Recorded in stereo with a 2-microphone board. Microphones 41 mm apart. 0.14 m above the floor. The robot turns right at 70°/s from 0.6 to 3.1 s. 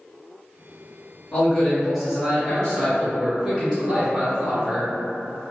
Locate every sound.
1.3 s a man speaking: 15° left (ahead or behind), 1.7 m; by 4.9 s 25° right (ahead or behind), 1.7 m